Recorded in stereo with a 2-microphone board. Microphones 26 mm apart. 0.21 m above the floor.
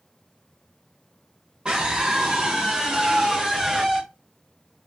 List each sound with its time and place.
1.6 s a scream: 35° right (ahead or behind), 2.5 m; by 4.0 s 20° right (ahead or behind), 3 m